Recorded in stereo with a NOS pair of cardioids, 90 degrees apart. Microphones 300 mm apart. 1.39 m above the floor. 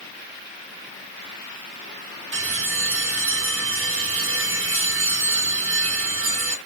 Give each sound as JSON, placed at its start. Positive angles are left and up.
{"t": 2.3, "sound": "a bell", "azimuth_deg": -45, "distance_m": 1.9}